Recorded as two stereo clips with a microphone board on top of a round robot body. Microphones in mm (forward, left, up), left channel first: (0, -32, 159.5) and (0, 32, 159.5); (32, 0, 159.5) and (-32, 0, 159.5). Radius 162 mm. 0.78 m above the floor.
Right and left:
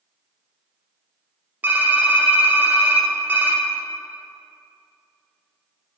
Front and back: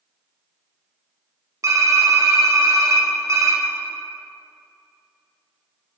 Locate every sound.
1.6 s typing on a keyboard: 150° left, 1.4 m